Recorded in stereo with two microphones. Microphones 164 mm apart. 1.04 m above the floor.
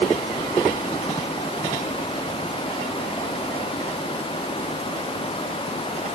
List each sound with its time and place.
Only background noise.